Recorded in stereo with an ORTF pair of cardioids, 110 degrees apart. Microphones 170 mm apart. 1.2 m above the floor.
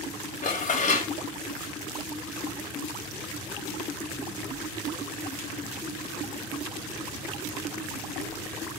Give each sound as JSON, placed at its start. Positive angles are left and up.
{"t": 0.4, "sound": "dishes clattering", "azimuth_deg": 45, "distance_m": 1.1}